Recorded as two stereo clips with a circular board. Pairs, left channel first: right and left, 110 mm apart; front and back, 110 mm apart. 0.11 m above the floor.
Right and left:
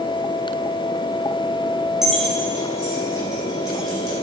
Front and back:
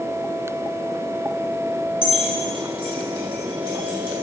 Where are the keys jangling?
5° left, 2 m; by 4.1 s 40° right, 4.5 m.